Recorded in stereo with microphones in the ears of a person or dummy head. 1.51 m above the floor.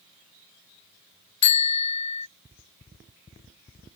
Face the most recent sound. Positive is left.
turn(degrees=25)  # may be behind; listen again after turning